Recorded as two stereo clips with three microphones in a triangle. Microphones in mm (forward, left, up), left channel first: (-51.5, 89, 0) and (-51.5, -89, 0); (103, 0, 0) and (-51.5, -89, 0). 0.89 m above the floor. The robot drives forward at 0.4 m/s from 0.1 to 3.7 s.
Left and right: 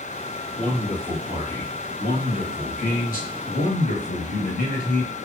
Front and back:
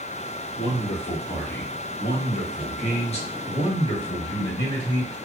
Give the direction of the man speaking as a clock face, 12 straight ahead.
11 o'clock.